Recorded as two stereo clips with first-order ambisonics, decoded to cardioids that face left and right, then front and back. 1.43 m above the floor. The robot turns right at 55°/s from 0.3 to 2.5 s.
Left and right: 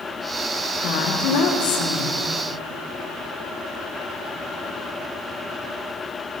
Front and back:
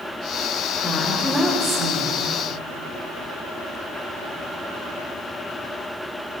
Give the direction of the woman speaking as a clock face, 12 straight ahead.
10 o'clock.